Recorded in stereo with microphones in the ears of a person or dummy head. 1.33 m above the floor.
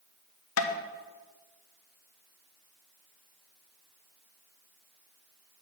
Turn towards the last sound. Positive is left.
turn(degrees=65)  # may be behind; listen again after turning